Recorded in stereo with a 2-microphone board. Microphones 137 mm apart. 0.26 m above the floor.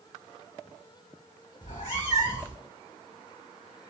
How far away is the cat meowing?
About 1.8 m.